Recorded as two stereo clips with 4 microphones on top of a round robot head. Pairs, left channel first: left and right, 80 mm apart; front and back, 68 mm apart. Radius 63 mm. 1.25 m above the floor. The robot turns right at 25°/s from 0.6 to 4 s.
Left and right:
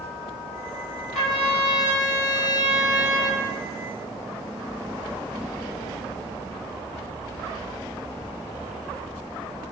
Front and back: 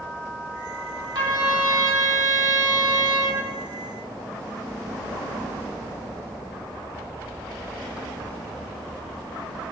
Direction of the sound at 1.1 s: 170° left.